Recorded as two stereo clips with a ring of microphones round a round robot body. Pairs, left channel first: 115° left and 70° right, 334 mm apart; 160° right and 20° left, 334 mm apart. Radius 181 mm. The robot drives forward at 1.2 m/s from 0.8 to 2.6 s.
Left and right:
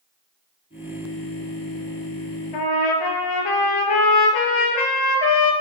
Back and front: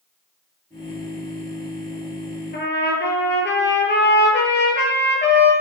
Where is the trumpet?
140° left, 2.5 m.